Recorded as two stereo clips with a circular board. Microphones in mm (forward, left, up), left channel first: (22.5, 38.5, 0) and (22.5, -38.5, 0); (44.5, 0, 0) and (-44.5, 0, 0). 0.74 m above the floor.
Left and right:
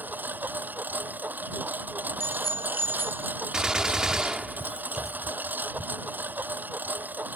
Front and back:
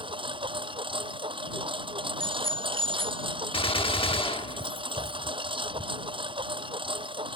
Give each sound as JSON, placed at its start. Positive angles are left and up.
{"t": 0.0, "sound": "a lawn mower", "azimuth_deg": -155}
{"t": 2.2, "sound": "a bicycle bell", "azimuth_deg": 50}
{"t": 3.5, "sound": "a gunshot", "azimuth_deg": -10}